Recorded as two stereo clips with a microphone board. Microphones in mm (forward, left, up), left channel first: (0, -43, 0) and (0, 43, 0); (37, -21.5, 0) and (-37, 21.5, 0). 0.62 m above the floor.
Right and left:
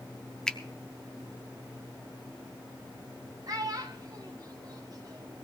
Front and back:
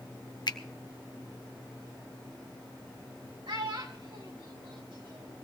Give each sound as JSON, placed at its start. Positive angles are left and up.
{"t": 0.5, "sound": "a finger snap", "azimuth_deg": -10, "distance_m": 0.6}
{"t": 3.5, "sound": "a child speaking", "azimuth_deg": 130, "distance_m": 2.5}